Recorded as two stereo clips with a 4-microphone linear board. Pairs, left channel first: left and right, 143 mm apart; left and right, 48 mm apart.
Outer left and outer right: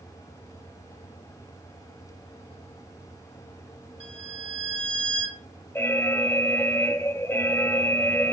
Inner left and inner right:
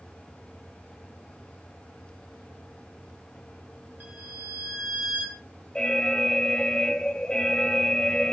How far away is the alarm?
About 0.6 m.